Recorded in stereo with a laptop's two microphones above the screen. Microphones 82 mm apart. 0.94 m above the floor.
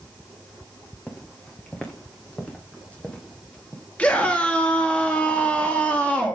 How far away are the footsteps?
About 4 m.